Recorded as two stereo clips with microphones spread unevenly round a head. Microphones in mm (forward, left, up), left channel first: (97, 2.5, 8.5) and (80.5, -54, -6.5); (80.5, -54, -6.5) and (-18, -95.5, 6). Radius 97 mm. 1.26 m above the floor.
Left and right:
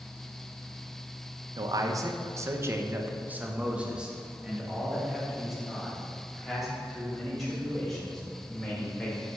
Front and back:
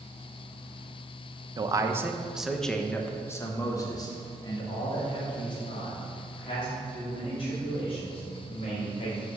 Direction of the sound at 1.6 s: 100° right.